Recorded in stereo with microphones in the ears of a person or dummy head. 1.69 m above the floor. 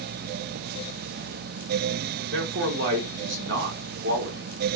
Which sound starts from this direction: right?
A man speaking, at 2.3 s.